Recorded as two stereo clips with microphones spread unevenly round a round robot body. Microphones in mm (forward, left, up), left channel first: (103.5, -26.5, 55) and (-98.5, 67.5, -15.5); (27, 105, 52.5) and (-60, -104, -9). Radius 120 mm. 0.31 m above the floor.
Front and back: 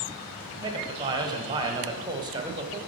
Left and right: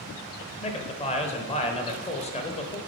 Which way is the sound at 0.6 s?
135° left.